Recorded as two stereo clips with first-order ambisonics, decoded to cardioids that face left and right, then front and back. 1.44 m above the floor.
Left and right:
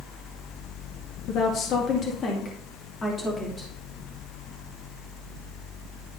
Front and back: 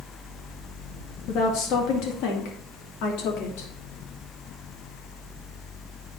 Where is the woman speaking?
45° left, 2.0 m; by 3.7 s 10° left, 3 m.